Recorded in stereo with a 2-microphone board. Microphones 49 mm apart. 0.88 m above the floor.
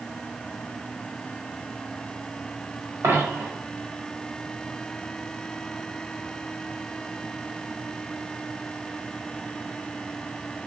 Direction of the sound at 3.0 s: 65° right (ahead or behind).